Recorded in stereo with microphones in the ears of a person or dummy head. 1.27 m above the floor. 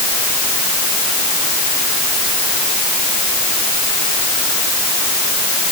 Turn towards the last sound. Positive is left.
No sound to turn to.